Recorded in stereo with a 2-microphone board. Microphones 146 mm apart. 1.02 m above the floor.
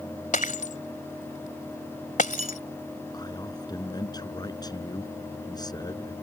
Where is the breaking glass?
65° left (ahead or behind).